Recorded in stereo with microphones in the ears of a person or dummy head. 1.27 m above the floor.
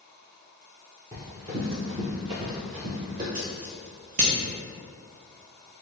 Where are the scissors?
50° right (ahead or behind), 0.6 m.